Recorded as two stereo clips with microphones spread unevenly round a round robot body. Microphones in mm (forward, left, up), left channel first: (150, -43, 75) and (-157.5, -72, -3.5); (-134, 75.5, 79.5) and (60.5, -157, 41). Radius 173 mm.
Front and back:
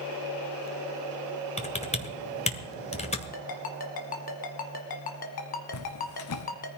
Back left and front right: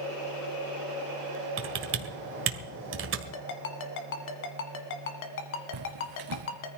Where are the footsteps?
25° right, 1.3 m.